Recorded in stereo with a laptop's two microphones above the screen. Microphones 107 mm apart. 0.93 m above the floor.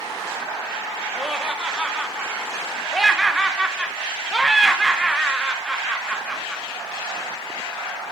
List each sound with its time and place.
1.1 s laughter: 5° right (ahead or behind), 0.6 m